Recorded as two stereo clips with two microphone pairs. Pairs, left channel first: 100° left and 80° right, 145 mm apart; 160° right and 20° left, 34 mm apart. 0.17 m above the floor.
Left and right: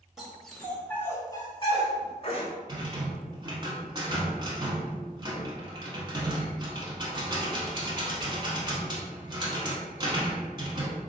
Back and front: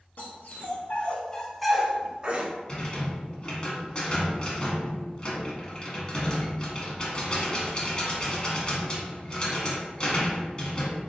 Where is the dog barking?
165° right, 0.9 m; by 2.5 s 60° left, 0.8 m.